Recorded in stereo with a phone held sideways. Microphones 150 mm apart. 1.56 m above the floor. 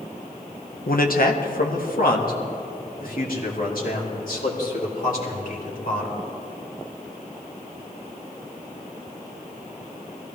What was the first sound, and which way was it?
A man speaking, 75° left (ahead or behind).